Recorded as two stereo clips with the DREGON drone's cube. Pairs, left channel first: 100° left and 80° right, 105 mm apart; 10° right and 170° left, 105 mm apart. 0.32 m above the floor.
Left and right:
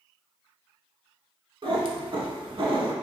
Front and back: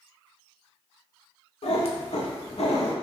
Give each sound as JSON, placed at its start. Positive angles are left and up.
{"t": 1.6, "sound": "a cat meowing", "azimuth_deg": -35, "distance_m": 0.5}